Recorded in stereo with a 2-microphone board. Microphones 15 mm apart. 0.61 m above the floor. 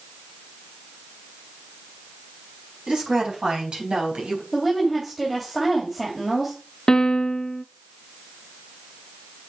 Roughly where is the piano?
Left.